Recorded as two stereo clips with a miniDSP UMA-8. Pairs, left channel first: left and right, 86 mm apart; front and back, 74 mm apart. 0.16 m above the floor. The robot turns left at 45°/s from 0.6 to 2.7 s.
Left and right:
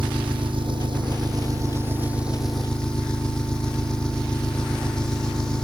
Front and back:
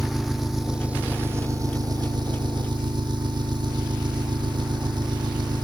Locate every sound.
0.0 s an engine running: 95° right; by 5.6 s 170° left